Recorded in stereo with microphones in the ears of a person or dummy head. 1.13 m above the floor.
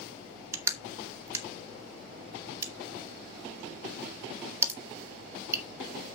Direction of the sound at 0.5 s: 15° right (ahead or behind).